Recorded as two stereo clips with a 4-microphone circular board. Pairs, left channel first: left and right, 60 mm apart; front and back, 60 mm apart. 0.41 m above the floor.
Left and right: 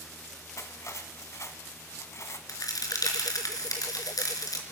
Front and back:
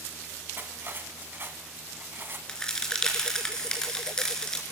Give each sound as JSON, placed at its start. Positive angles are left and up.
{"t": 0.6, "sound": "cutlery clinking", "azimuth_deg": 125, "distance_m": 1.7}
{"t": 2.5, "sound": "a crack", "azimuth_deg": 80, "distance_m": 3.5}